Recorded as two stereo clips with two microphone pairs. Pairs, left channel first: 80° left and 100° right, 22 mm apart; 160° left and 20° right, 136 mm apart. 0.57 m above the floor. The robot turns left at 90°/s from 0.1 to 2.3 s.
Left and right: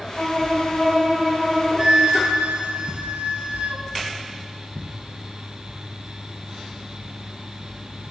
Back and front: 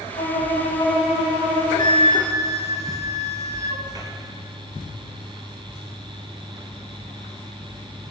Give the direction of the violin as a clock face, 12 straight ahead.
7 o'clock.